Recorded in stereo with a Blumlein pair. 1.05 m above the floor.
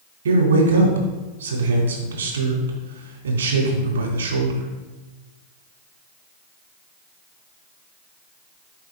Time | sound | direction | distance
0.2 | a man speaking | 65° right | 2.5 m